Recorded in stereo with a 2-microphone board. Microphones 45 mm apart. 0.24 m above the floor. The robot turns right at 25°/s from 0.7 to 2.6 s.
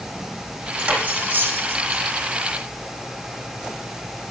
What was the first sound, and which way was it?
Cutlery clinking, 20° right (ahead or behind).